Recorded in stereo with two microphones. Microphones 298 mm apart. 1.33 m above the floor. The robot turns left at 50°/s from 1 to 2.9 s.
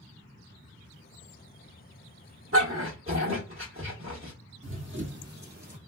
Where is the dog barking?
45° right (ahead or behind), 1.2 m.